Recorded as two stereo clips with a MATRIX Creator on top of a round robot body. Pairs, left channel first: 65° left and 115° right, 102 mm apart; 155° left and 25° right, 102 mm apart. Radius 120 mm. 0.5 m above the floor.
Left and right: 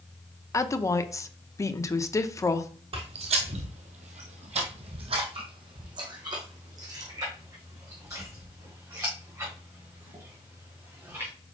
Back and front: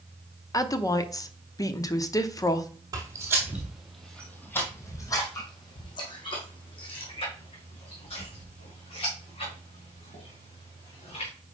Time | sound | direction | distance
0.5 | a woman speaking | 115° left | 0.9 m
2.9 | footsteps | 80° right | 1.0 m